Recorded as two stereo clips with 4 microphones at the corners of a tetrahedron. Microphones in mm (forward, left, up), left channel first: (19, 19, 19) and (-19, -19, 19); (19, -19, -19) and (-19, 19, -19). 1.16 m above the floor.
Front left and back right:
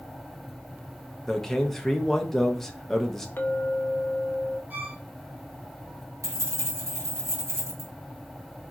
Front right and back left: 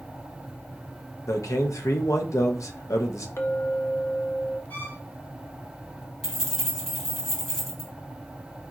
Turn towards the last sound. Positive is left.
turn(degrees=-125)